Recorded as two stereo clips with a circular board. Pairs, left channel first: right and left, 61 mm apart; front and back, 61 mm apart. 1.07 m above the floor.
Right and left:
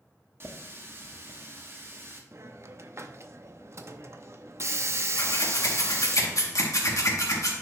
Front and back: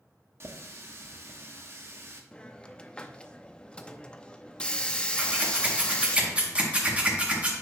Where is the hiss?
70° left, 0.6 m.